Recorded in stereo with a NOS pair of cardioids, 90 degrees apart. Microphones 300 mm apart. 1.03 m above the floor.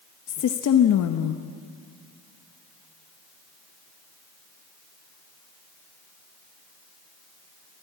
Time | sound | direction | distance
0.3 | a woman speaking | 60° left | 1.0 m